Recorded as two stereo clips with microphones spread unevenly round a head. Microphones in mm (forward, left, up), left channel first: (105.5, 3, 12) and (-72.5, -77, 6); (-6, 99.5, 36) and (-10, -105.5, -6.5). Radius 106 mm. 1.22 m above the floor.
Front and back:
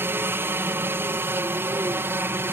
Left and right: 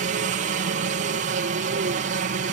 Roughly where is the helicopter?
Right.